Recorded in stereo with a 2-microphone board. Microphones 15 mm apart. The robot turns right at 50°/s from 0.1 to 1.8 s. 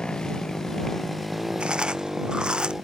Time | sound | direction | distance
0.0 | a motorcycle | 50° left (ahead or behind) | ?
1.6 | chewing | 70° right (ahead or behind) | ?